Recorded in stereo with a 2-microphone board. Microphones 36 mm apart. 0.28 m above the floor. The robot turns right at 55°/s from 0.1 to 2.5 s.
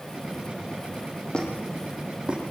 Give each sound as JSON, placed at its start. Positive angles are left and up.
{"t": 1.3, "sound": "a squeak", "side_deg": 30, "distance_m": 9.5}